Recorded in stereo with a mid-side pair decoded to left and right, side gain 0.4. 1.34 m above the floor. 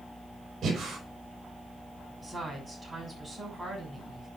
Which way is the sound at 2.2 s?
15° right.